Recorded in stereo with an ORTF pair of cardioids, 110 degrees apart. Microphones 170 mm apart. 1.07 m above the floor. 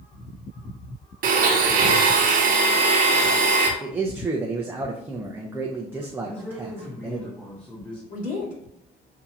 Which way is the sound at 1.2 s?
55° right.